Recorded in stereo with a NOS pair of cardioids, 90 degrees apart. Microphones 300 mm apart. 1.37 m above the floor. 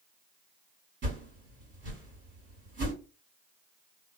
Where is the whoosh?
40° right, 1.9 m.